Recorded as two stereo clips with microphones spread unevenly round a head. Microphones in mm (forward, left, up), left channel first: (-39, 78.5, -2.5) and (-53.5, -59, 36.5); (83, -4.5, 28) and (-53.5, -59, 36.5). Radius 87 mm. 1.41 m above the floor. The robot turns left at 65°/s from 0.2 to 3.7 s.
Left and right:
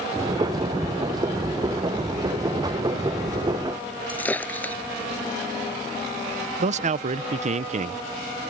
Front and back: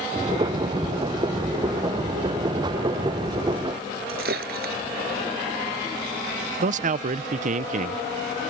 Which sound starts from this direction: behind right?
A man speaking, at 6.6 s.